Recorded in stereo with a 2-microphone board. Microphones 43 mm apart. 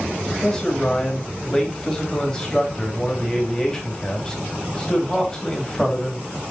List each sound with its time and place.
0.3 s a man speaking: 15° left (ahead or behind), 2.5 m